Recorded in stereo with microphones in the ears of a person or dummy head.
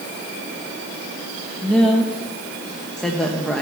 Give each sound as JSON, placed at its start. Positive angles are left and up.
{"t": 1.6, "sound": "a woman speaking", "side_deg": 5, "distance_m": 1.0}